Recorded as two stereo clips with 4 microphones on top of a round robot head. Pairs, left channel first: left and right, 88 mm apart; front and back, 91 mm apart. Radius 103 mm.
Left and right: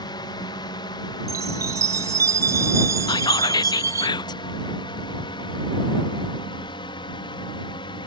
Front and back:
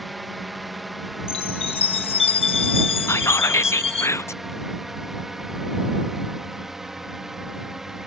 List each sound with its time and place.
0.0 s a drone: 90° left; by 8.1 s 95° left
1.3 s a chime: 25° right
3.1 s whispering: 60° left